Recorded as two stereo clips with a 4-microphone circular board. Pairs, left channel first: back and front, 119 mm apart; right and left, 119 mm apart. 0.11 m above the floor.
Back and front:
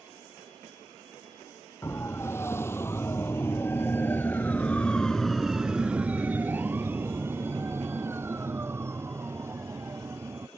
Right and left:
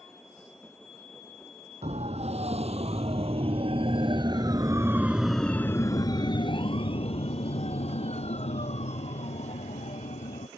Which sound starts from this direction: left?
A siren, at 1.8 s.